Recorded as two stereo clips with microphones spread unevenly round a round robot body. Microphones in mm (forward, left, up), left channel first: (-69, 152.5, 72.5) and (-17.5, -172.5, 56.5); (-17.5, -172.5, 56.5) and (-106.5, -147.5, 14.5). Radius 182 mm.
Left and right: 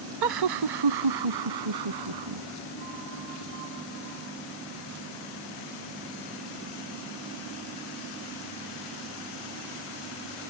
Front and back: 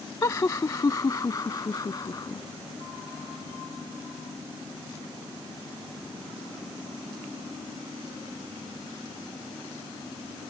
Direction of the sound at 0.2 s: 70° right.